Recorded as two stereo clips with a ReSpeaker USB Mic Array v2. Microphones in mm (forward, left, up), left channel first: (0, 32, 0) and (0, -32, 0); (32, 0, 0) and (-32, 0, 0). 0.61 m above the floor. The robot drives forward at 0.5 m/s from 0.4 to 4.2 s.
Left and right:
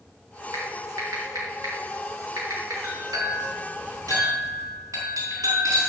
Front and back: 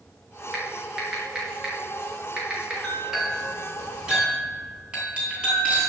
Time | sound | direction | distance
0.5 | typing on a keyboard | 105° right | 5 m
2.8 | a clink | 100° right | 5 m